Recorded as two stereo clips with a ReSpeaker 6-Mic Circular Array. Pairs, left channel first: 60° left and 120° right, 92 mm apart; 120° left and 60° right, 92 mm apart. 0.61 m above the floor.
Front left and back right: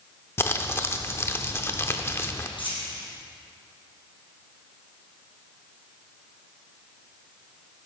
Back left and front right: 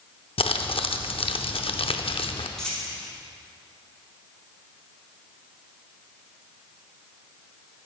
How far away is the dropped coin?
About 3.5 m.